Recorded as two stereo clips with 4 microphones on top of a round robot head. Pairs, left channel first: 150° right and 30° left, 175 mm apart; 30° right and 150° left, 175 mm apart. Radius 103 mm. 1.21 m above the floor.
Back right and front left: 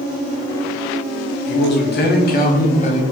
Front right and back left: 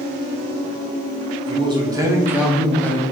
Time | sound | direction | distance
1.5 | a man speaking | 150° right | 1.1 m